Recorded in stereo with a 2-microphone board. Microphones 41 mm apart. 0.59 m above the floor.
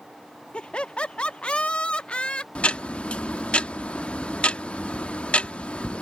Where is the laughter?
25° left (ahead or behind).